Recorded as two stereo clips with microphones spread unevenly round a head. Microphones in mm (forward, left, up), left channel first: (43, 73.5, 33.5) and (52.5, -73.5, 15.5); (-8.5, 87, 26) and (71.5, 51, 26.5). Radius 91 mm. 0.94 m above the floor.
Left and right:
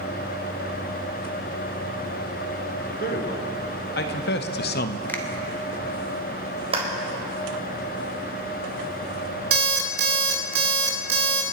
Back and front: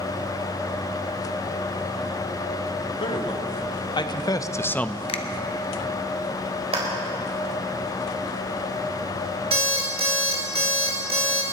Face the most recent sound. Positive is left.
turn(degrees=-80)